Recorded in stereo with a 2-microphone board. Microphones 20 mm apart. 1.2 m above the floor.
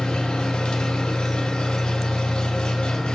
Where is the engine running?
60° left (ahead or behind), 1.2 m.